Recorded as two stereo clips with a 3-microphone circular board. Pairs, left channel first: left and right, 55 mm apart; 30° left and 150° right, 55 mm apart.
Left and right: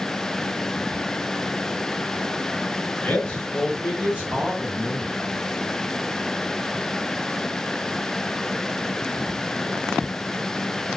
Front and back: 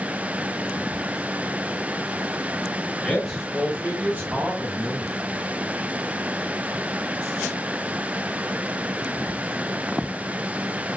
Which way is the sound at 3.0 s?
95° left.